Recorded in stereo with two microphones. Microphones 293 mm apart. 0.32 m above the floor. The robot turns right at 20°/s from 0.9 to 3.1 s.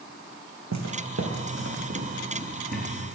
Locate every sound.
0.7 s footsteps: 70° right (ahead or behind), 1.0 m; by 2.9 s 25° right (ahead or behind), 2.5 m